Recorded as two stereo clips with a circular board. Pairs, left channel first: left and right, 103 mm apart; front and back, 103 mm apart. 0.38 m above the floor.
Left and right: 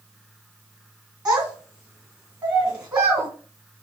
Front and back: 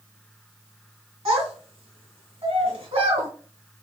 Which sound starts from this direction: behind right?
A child speaking, at 1.2 s.